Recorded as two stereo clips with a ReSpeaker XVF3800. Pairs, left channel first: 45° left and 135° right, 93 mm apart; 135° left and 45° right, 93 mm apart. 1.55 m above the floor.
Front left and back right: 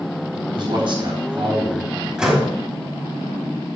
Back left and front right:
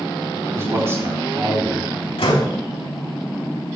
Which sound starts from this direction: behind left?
A door slam, at 2.2 s.